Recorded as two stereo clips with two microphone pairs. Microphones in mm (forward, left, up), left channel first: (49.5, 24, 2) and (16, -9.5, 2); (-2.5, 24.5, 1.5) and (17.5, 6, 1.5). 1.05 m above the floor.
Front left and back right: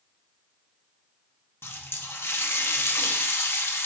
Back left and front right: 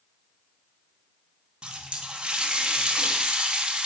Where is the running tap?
10° left, 0.8 m.